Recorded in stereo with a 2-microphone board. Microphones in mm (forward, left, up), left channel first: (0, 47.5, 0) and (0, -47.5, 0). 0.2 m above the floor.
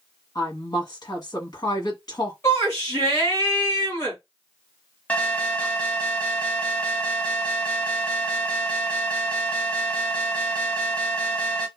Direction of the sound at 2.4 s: 30° left (ahead or behind).